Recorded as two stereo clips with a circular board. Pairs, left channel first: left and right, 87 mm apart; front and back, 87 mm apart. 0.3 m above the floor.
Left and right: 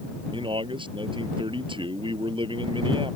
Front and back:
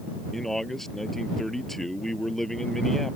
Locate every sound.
0.3 s a man speaking: 85° right